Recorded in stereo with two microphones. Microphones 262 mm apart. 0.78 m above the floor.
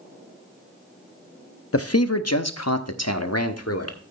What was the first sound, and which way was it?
A man speaking, 55° left (ahead or behind).